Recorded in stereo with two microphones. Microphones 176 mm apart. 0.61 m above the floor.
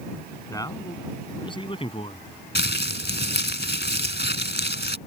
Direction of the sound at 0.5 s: 20° left (ahead or behind).